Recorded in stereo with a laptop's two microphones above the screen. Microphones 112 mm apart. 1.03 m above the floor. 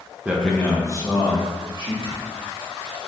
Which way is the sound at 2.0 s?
60° left (ahead or behind).